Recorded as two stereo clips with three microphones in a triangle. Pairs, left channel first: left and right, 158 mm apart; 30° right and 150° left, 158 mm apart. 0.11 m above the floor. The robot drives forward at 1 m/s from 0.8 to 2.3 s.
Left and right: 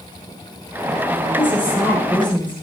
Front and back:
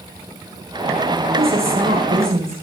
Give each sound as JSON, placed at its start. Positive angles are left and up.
{"t": 1.3, "sound": "a woman speaking", "azimuth_deg": 170, "distance_m": 6.5}